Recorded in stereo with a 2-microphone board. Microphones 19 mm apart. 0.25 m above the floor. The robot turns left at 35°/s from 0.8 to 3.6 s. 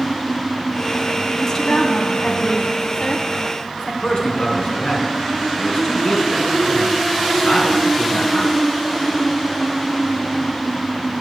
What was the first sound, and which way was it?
A woman speaking, 135° left.